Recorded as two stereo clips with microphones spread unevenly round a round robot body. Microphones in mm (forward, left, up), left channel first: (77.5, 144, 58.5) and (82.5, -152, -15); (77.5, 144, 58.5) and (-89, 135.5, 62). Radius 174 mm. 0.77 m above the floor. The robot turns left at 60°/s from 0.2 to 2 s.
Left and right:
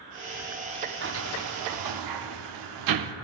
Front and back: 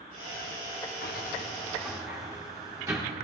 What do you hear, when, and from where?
1.0 s a sliding door: 40° right, 0.8 m; by 3.1 s 95° right, 0.8 m